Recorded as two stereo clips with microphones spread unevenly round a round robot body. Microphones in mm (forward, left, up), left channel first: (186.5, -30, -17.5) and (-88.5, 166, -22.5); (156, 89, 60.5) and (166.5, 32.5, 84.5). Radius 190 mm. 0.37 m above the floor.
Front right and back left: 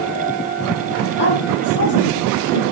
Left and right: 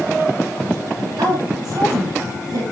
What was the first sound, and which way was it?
A woman speaking, 100° right.